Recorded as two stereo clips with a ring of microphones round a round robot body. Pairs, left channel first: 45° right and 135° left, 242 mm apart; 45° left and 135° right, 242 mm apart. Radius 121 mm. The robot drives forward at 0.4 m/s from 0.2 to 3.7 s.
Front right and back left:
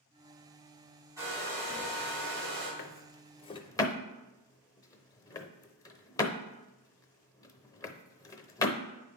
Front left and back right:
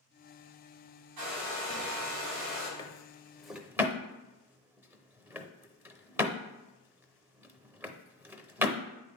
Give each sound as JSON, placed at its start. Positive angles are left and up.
{"t": 1.2, "sound": "a hair dryer", "azimuth_deg": -145, "distance_m": 4.0}
{"t": 2.8, "sound": "a drawer", "azimuth_deg": -20, "distance_m": 0.6}